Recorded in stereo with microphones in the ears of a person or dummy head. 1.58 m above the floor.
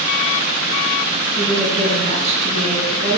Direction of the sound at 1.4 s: 40° right (ahead or behind).